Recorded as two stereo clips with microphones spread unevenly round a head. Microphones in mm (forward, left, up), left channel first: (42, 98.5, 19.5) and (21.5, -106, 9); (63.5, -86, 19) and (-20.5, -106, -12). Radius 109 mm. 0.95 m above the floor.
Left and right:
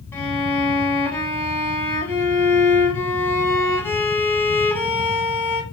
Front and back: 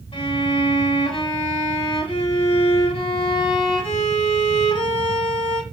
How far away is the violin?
About 1.4 m.